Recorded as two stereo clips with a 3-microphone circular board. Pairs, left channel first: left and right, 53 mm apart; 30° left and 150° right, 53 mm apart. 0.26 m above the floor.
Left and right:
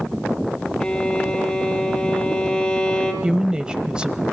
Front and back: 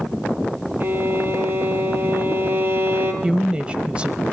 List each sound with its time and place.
0.8 s a violin: 165° left, 3 m
3.2 s a woman speaking: 135° right, 1.0 m